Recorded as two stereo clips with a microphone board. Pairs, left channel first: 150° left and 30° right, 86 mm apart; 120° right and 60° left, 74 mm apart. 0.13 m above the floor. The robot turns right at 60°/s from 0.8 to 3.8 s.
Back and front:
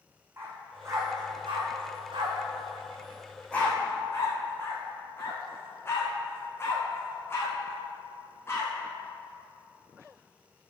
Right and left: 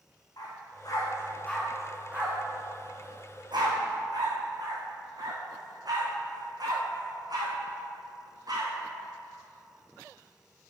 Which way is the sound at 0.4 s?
90° right.